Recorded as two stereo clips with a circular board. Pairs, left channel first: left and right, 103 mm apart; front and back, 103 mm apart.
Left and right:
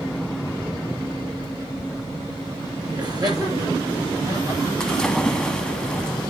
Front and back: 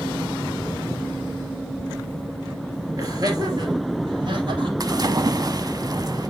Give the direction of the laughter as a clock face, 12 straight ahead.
4 o'clock.